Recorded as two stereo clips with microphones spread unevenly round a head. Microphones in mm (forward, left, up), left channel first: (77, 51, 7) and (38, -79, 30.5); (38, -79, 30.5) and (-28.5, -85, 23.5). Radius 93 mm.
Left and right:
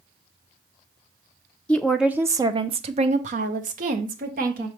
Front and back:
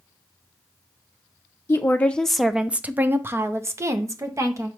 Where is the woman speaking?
25° left, 0.5 m; by 4.7 s 140° right, 1.4 m.